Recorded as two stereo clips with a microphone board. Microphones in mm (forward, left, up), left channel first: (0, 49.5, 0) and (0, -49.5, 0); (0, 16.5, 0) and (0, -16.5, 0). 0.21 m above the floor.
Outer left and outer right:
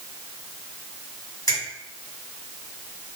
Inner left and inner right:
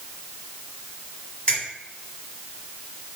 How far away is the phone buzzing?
I don't hear a phone buzzing.